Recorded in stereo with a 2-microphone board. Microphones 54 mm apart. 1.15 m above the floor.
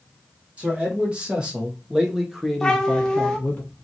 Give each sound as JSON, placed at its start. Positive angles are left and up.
{"t": 0.6, "sound": "a man speaking", "side_deg": -20, "distance_m": 1.6}
{"t": 2.6, "sound": "a cat meowing", "side_deg": 15, "distance_m": 0.8}